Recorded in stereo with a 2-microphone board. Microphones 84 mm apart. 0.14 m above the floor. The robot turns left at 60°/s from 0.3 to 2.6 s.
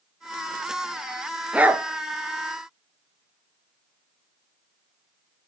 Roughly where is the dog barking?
Centre.